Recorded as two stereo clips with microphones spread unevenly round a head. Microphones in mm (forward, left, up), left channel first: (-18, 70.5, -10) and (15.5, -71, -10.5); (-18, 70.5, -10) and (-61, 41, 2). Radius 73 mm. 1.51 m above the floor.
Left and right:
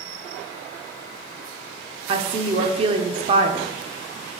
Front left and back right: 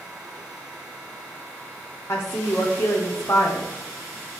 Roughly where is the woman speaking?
Ahead.